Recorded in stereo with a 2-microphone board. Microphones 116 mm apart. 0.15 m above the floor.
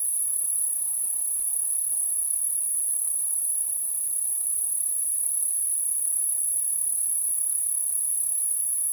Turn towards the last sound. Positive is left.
turn(degrees=-30)  # may be behind; listen again after turning